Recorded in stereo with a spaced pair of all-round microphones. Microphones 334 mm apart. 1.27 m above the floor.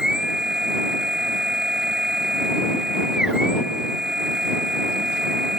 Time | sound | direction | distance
0.0 | a machine running | centre (ahead or behind) | ?